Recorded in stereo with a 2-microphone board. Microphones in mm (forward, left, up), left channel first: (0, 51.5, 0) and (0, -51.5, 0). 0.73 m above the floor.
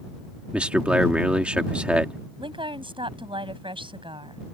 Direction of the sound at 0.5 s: 10° right (ahead or behind).